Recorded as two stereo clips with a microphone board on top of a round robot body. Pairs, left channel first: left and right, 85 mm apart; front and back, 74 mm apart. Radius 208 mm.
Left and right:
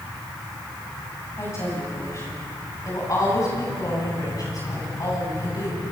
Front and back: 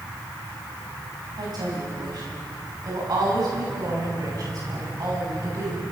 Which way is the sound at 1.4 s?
150° left.